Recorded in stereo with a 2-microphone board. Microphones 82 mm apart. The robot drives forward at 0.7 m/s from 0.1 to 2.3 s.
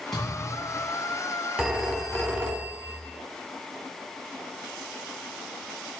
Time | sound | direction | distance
0.1 | a thud | centre (ahead or behind) | 9 m
1.6 | a phone ringing | 15° right (ahead or behind) | 3 m